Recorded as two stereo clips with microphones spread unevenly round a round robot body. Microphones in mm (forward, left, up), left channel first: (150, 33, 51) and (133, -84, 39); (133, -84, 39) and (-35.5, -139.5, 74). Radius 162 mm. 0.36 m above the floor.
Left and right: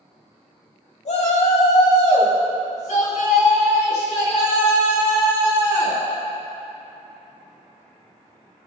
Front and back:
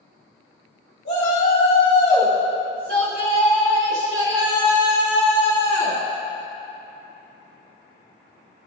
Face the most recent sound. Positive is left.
turn(degrees=140)